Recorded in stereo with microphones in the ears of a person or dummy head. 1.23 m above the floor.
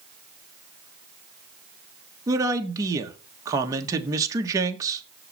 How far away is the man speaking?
About 1.4 m.